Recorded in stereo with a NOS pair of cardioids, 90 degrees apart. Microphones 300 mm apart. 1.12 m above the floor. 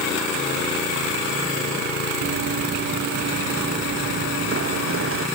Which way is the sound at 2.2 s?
50° right.